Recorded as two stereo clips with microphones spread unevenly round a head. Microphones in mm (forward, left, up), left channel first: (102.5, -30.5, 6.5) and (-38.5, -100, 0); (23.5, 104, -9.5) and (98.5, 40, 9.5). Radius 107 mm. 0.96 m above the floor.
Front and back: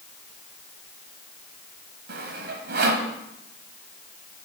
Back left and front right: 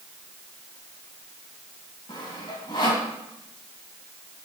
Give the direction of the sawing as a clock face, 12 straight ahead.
5 o'clock.